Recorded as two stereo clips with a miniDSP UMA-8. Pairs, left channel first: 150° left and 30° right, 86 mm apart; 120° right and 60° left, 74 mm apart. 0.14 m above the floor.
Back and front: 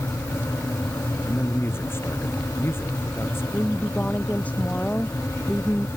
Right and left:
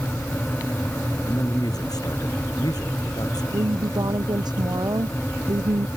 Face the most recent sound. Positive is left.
turn(degrees=75)